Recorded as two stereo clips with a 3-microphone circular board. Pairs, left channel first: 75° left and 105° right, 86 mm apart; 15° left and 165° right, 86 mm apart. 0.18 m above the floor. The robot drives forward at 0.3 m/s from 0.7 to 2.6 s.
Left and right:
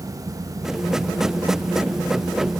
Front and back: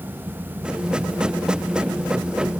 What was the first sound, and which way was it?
Only background noise.